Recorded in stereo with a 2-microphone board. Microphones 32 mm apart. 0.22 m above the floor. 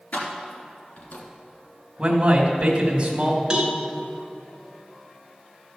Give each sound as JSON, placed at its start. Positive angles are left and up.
{"t": 0.1, "sound": "keys jangling", "side_deg": 60, "distance_m": 2.5}
{"t": 2.0, "sound": "a man speaking", "side_deg": -30, "distance_m": 1.6}
{"t": 3.5, "sound": "a cowbell", "side_deg": -25, "distance_m": 1.5}